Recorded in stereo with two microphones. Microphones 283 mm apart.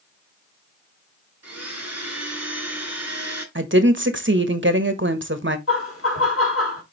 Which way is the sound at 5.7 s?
55° left (ahead or behind).